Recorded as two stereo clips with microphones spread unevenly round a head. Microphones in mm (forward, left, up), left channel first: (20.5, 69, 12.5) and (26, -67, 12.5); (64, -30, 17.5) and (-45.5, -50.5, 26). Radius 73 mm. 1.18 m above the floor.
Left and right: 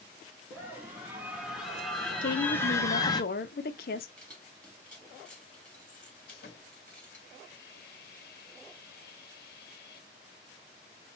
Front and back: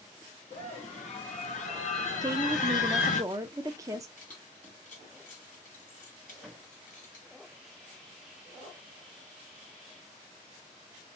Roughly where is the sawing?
Left.